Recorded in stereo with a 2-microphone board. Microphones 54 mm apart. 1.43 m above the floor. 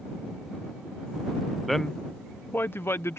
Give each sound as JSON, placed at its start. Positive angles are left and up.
{"t": 1.7, "sound": "a man speaking", "side_deg": 0}